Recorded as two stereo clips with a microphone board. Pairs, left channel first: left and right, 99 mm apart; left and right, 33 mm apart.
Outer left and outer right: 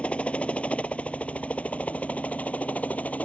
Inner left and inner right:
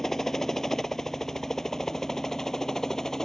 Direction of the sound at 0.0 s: 10° left (ahead or behind).